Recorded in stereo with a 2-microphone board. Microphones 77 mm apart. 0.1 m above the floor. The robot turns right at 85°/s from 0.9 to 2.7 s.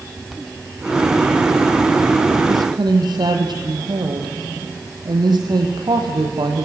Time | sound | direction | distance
2.5 | a woman speaking | 55° right (ahead or behind) | 3 m